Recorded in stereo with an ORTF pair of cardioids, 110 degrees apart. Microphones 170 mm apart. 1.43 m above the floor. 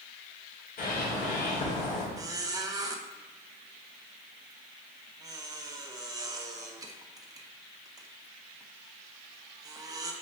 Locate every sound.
0.8 s a bird: 70° left, 3 m
2.2 s a squeak: 20° right, 1.0 m